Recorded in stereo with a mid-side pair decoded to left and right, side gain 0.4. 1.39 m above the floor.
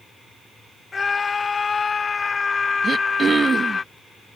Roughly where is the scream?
Ahead left.